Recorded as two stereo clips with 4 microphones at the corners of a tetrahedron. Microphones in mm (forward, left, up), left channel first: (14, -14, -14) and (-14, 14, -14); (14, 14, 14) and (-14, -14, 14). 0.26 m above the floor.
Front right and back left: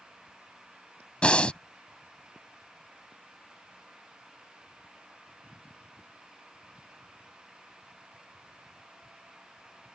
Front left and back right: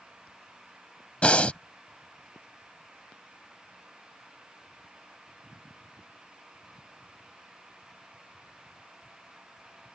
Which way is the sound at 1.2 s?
5° left.